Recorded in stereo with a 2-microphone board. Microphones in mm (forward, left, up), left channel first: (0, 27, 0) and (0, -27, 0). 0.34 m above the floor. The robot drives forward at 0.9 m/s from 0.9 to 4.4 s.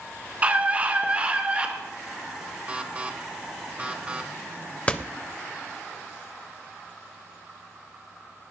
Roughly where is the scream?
Right.